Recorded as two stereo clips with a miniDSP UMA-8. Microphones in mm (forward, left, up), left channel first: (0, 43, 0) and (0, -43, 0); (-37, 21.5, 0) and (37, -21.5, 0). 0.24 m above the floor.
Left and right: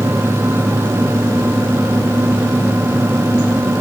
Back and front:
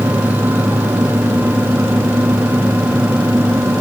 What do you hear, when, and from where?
Only background noise.